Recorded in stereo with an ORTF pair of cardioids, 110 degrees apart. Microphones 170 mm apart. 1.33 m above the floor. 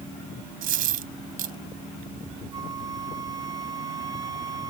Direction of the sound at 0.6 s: 60° right.